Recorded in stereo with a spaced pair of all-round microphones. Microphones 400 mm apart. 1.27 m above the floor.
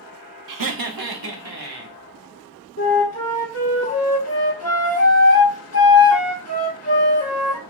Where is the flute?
40° left (ahead or behind), 1.0 m.